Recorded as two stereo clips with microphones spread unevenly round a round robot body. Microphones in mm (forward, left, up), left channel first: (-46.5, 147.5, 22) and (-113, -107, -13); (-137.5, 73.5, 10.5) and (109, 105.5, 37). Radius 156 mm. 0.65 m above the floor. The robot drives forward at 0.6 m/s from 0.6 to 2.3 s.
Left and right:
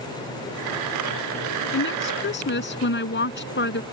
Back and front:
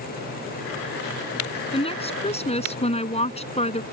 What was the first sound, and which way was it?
A woman speaking, 120° left.